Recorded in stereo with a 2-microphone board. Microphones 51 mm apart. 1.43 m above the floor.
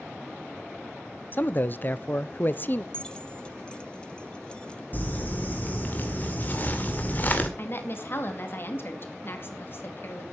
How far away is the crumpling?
About 2.0 m.